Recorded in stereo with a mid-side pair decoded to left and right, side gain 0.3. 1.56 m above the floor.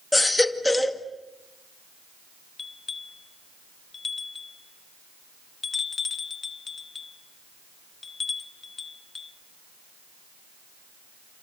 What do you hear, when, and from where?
0.1 s a baby crying: 15° left, 2 m
2.6 s a bell: 50° left, 1.4 m